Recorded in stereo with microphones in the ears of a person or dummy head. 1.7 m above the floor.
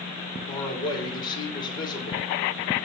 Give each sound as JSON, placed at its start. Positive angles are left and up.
{"t": 0.5, "sound": "a man speaking", "side_deg": 30, "distance_m": 2.0}